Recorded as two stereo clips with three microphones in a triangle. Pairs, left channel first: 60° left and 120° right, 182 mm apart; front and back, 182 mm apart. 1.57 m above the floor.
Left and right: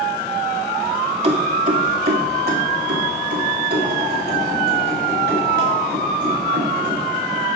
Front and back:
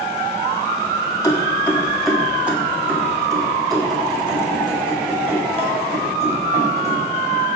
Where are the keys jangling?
70° right, 2 m; by 7.5 s 130° right, 6.5 m.